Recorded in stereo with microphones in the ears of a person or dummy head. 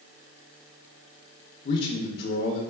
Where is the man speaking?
45° left (ahead or behind), 0.5 m.